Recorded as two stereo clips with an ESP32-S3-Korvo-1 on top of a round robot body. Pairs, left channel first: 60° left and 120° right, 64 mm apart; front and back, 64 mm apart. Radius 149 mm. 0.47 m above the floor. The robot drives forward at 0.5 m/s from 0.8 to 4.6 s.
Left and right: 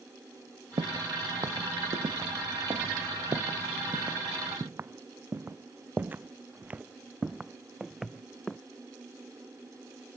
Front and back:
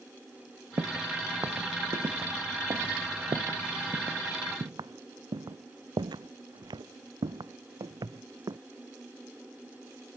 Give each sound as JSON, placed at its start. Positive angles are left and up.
{"t": 0.8, "sound": "footsteps", "azimuth_deg": -135}